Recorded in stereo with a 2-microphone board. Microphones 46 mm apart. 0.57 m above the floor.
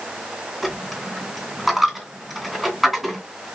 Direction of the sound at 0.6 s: Centre (ahead or behind).